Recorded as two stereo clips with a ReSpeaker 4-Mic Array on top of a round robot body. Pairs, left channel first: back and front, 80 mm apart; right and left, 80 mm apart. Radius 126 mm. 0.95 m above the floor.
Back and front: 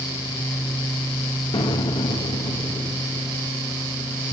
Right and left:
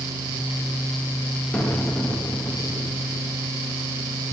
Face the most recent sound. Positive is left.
turn(degrees=-175)